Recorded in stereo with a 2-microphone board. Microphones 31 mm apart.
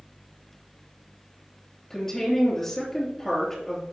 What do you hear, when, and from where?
1.9 s a woman speaking: 10° left (ahead or behind), 3 m